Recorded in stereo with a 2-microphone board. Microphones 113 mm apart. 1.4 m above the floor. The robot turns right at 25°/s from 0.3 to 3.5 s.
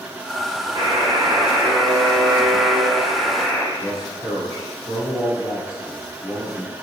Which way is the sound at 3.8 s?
40° left (ahead or behind).